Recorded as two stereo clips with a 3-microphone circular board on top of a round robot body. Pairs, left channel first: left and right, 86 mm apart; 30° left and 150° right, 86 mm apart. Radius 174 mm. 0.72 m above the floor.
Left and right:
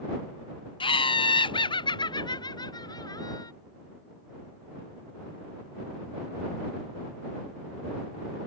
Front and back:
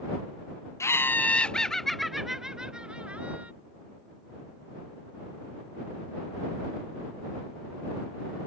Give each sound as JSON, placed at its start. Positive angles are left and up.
{"t": 0.8, "sound": "laughter", "azimuth_deg": 85}